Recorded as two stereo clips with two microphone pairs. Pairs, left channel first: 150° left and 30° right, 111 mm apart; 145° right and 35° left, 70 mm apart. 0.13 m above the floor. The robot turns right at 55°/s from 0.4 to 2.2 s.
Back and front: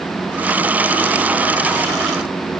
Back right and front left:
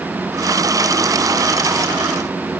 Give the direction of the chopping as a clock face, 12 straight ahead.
No chopping in this recording.